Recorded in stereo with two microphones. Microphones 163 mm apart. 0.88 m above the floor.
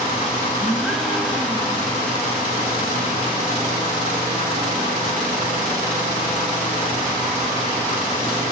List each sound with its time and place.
0.6 s a gasp: centre (ahead or behind), 2.5 m